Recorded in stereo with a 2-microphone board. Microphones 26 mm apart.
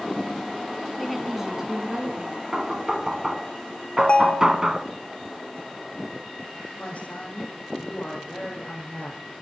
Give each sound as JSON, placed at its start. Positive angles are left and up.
{"t": 1.0, "sound": "a woman speaking", "side_deg": 0, "distance_m": 2.5}
{"t": 2.5, "sound": "knocking", "side_deg": -25, "distance_m": 1.2}
{"t": 4.0, "sound": "a ringtone", "side_deg": 45, "distance_m": 0.8}
{"t": 6.8, "sound": "a woman speaking", "side_deg": 55, "distance_m": 7.0}